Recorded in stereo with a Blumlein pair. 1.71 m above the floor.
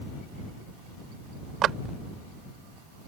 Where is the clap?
30° right.